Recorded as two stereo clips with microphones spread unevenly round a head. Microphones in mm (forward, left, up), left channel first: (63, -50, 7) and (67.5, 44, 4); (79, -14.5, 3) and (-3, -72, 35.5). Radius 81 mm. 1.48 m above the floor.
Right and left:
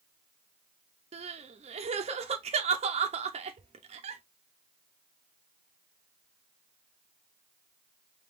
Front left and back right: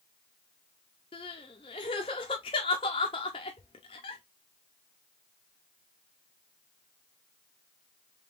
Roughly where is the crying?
Left.